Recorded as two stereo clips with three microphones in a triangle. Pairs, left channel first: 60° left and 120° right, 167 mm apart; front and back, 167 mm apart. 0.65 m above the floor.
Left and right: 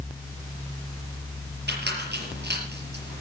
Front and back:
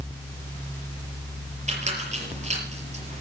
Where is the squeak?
130° right, 5.5 m.